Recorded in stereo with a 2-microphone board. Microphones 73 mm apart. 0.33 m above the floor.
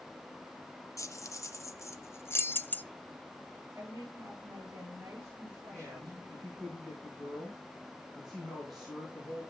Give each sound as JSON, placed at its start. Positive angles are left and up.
{"t": 1.0, "sound": "keys jangling", "side_deg": 45, "distance_m": 1.2}
{"t": 3.8, "sound": "a woman speaking", "side_deg": -35, "distance_m": 7.0}
{"t": 5.7, "sound": "a man speaking", "side_deg": 0, "distance_m": 5.5}